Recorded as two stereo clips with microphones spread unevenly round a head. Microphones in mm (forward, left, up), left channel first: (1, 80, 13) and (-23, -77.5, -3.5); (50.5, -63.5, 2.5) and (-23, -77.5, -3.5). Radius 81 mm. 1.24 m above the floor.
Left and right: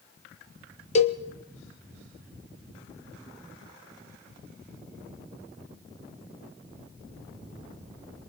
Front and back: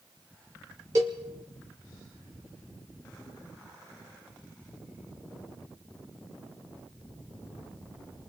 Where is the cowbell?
130° left, 1.4 m.